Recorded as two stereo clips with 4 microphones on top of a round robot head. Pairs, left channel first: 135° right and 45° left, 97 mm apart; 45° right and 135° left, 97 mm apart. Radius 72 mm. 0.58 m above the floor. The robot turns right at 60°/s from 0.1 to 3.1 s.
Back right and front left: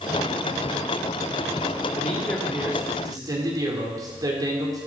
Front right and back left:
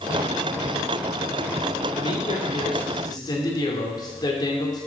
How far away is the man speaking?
About 2 m.